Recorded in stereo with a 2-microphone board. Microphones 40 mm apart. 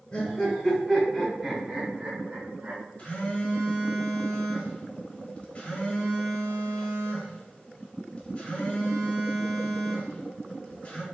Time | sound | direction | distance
0.1 | laughter | 35° left (ahead or behind) | 1.7 m
3.0 | a phone buzzing | 35° left (ahead or behind) | 1.3 m